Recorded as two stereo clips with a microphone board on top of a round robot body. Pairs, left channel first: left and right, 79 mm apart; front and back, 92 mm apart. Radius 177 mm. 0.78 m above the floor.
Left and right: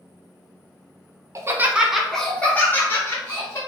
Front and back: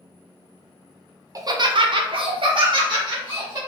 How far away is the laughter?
About 0.6 m.